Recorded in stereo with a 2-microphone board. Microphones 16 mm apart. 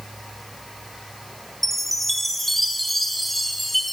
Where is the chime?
10° left (ahead or behind), 1.3 m.